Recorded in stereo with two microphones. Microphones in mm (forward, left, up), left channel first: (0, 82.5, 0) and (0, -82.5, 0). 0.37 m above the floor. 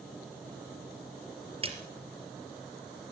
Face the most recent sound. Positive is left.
turn(degrees=-35)  # may be behind; listen again after turning